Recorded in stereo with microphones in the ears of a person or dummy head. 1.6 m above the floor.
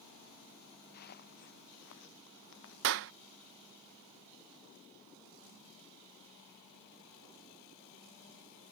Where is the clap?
55° right (ahead or behind).